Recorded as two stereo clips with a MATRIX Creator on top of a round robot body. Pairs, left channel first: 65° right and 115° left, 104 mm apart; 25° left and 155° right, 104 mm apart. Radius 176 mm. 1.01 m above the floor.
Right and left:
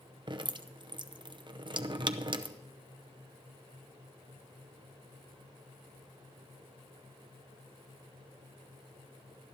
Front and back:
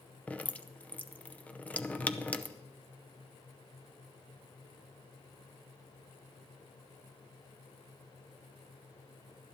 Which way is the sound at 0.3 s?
95° left.